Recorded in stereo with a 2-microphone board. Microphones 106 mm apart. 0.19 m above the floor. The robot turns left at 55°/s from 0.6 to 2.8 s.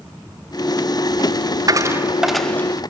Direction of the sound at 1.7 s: 35° right (ahead or behind).